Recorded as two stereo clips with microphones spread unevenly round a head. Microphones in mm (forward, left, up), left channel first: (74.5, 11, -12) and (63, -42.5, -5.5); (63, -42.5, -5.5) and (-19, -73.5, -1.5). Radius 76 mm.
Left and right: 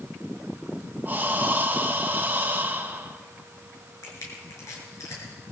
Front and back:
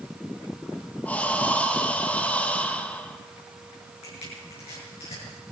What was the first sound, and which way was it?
Breathing, 55° right.